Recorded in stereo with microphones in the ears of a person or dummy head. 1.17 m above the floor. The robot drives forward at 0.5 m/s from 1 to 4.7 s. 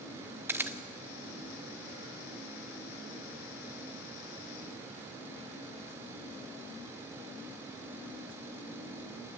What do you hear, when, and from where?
0.5 s a camera shutter: 15° right (ahead or behind), 0.9 m